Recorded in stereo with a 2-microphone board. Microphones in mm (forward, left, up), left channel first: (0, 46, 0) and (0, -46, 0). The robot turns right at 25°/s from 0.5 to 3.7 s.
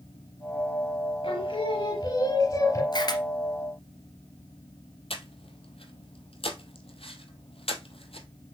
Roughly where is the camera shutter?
Left.